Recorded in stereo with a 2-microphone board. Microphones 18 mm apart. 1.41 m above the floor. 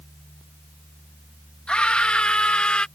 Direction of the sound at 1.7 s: 85° left.